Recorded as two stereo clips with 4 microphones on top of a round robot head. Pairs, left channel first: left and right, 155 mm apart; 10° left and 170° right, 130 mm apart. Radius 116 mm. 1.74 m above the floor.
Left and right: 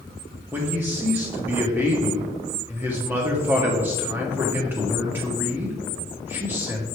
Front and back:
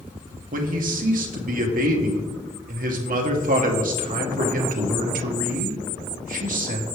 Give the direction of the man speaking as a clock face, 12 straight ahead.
6 o'clock.